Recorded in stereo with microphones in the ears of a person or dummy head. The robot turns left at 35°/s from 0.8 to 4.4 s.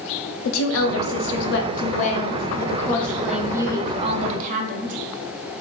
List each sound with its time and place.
0.5 s a woman speaking: 85° left, 0.7 m; by 5.0 s 40° right, 0.7 m